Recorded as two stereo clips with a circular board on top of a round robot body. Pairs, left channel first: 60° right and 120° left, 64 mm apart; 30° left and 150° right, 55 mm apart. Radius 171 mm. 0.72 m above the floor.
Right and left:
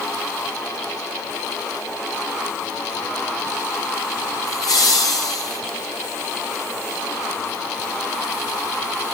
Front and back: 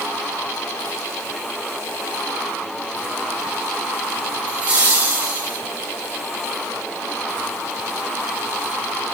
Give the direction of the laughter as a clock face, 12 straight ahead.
3 o'clock.